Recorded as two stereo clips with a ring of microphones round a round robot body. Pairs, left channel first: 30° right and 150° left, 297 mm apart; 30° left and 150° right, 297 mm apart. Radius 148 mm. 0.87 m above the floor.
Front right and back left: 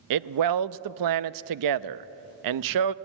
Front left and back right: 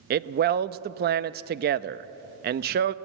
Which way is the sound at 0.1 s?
155° left.